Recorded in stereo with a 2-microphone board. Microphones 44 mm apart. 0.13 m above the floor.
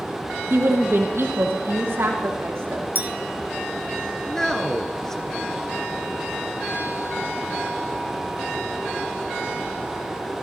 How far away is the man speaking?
About 1.6 m.